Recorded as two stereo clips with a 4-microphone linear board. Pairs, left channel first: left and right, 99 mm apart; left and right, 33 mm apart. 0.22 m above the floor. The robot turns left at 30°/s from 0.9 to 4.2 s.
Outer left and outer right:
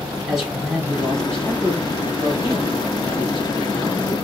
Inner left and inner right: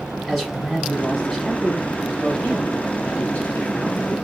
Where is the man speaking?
Straight behind, 2.5 m; by 4.1 s 85° left, 2.5 m.